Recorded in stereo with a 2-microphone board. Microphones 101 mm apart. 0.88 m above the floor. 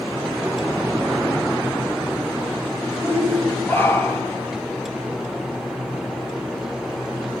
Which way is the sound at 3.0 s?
25° left (ahead or behind).